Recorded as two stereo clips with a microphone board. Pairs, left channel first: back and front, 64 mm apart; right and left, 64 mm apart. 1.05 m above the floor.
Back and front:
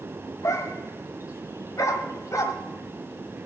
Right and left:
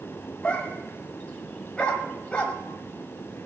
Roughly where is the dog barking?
Behind.